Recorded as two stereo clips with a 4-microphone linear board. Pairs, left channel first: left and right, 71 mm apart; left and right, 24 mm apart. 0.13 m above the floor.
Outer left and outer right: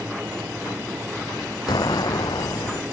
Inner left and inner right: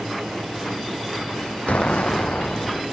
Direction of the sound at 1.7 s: 75° left (ahead or behind).